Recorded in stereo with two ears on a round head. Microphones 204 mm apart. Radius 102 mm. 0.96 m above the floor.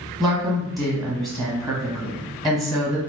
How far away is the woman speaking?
About 0.9 m.